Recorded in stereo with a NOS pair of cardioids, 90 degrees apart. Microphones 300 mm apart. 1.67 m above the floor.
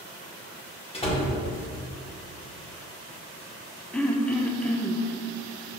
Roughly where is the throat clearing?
Ahead.